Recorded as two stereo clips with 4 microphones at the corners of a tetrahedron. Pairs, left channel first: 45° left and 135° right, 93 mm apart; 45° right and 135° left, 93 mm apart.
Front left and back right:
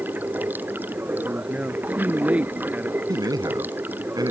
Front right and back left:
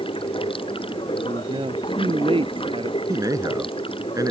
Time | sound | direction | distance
0.0 | running water | 65° right | ?
1.1 | a man speaking | 150° left | ?
3.1 | a man speaking | 175° right | ?